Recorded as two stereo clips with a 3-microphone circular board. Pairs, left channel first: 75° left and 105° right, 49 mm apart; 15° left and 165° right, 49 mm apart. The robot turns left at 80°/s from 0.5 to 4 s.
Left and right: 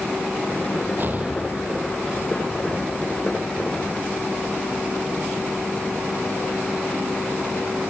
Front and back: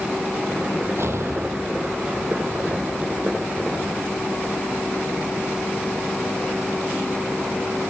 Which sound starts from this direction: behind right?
An explosion, at 1.0 s.